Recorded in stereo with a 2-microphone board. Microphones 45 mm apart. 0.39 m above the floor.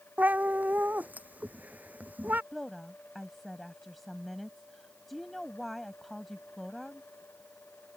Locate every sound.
0.2 s a cat meowing: 40° right (ahead or behind)
2.5 s a woman speaking: centre (ahead or behind)